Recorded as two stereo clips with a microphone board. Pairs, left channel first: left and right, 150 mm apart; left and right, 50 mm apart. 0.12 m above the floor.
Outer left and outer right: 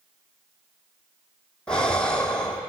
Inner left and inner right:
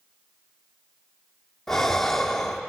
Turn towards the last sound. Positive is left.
turn(degrees=5)  # may be behind; listen again after turning